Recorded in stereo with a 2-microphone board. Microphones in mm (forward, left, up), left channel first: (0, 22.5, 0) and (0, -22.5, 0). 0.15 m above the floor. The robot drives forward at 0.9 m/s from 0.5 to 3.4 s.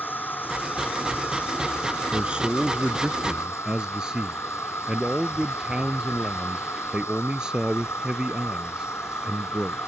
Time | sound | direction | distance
0.0 | an insect | 45° left (ahead or behind) | ?
2.1 | a man speaking | 20° right (ahead or behind) | ?